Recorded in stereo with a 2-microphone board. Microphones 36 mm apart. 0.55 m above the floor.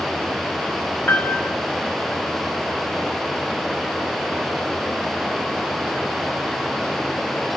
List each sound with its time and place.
1.1 s a piano: 65° left (ahead or behind), 1.3 m